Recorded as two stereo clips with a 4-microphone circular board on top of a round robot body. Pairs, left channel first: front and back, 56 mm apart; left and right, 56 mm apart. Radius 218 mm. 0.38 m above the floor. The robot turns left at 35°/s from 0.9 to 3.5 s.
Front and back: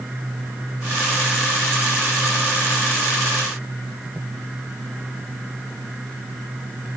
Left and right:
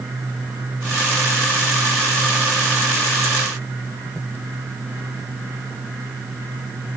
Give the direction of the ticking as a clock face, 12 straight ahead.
I don't hear ticking.